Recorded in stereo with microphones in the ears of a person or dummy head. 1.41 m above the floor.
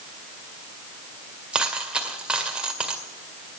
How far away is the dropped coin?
About 2 m.